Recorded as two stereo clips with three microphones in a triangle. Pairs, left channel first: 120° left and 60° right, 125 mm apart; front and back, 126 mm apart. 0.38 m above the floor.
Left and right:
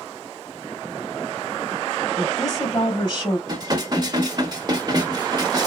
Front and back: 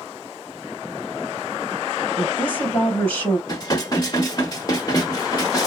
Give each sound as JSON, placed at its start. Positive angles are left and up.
{"t": 2.2, "sound": "a woman speaking", "azimuth_deg": 75, "distance_m": 2.5}
{"t": 3.5, "sound": "dishes clattering", "azimuth_deg": -30, "distance_m": 0.9}